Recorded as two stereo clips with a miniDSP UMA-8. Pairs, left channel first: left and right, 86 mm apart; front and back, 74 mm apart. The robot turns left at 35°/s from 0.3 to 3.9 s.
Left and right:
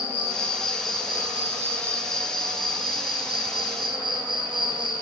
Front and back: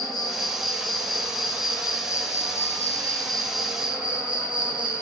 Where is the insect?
25° left, 1.4 m; by 5.0 s 105° right, 1.4 m.